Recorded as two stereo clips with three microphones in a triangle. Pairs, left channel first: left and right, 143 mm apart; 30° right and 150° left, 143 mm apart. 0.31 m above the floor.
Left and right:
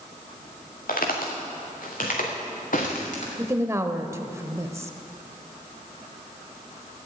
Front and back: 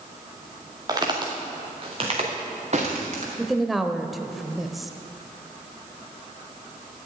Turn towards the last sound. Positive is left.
turn(degrees=-125)